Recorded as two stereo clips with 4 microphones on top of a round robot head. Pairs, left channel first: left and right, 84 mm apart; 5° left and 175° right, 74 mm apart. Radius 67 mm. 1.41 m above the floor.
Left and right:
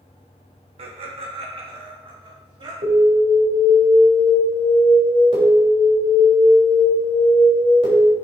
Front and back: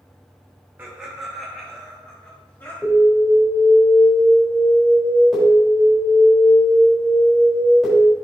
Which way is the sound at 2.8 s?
85° right.